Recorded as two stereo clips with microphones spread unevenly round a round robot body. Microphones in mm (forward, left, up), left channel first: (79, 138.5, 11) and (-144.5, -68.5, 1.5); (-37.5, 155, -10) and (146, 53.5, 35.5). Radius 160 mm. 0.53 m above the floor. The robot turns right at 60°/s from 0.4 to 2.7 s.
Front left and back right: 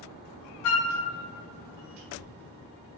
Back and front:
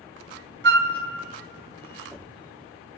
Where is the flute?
5° left, 0.5 m; by 0.9 s 20° left, 0.5 m.